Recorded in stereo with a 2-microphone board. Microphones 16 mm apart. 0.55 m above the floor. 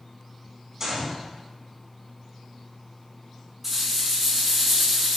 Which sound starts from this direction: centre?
A rattle, at 3.6 s.